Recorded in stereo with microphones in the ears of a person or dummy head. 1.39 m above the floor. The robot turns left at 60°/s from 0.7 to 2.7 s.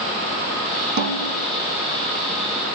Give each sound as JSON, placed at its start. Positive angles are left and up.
{"t": 1.0, "sound": "a snare drum", "azimuth_deg": -80, "distance_m": 2.0}